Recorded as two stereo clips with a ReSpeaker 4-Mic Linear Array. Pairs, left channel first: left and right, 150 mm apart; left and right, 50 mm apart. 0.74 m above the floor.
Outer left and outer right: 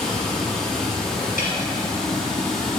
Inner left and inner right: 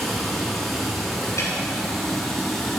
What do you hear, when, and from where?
0.0 s running water: 5° left (ahead or behind), 1.1 m
1.4 s a snare drum: 65° left (ahead or behind), 2.5 m